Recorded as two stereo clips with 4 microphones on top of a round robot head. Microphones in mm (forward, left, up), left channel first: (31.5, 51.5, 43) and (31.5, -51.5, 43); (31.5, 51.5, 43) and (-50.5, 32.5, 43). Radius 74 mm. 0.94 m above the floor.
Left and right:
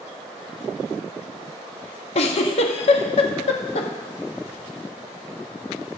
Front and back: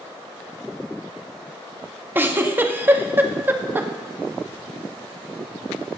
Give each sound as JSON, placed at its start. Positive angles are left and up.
{"t": 2.1, "sound": "a giggle", "azimuth_deg": 125, "distance_m": 1.0}